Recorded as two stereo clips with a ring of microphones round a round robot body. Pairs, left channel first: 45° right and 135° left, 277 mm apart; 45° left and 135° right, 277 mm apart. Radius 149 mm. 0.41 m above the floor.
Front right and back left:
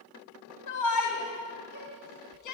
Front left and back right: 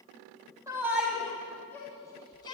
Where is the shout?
55° right, 3 m; by 2.5 s 30° right, 4.5 m.